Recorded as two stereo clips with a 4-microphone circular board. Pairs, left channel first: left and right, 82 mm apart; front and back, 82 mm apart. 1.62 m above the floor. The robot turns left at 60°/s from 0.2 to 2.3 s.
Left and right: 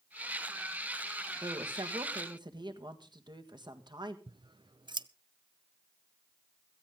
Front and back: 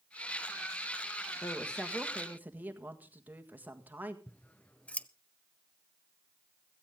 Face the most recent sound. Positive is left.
turn(degrees=-75)